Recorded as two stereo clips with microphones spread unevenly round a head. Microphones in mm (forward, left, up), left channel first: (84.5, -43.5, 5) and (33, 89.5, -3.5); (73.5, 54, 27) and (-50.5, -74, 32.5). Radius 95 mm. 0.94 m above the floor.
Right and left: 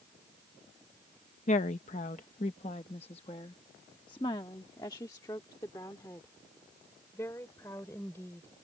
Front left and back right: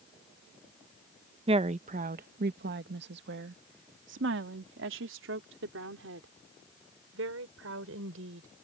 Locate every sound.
1.5 s a woman speaking: 85° right; by 8.5 s 145° right